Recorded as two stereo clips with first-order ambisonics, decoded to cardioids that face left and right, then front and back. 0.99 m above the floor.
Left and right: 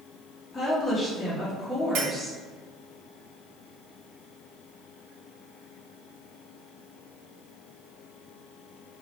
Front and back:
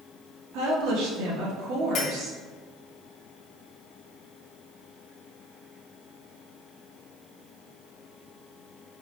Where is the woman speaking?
170° left, 1.2 m.